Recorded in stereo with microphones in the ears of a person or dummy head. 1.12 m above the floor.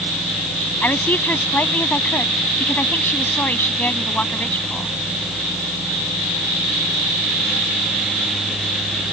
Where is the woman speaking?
10° left (ahead or behind).